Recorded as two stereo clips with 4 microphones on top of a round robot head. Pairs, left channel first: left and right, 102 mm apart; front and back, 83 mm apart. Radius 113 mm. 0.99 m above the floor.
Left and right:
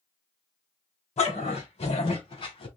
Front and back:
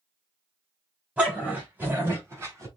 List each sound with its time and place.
1.2 s a dog barking: 100° left, 3.5 m; by 2.7 s 125° left, 3.5 m